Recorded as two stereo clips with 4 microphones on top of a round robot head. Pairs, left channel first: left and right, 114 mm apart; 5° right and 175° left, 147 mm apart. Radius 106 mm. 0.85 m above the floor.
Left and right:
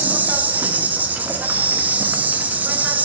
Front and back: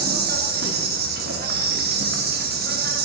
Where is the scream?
No scream in this recording.